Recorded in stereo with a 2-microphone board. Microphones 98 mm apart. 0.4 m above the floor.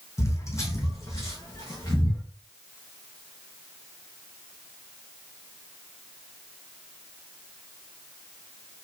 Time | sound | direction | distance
0.2 | footsteps | 30° left (ahead or behind) | 1.0 m